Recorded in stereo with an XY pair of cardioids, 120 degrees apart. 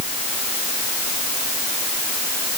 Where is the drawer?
I don't hear a drawer.